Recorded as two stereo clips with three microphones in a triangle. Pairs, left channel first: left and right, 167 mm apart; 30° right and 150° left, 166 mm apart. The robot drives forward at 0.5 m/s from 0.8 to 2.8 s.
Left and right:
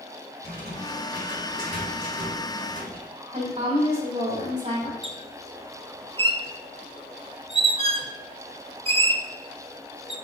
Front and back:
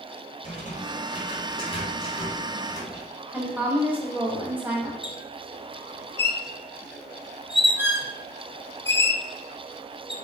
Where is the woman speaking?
135° right, 3 m.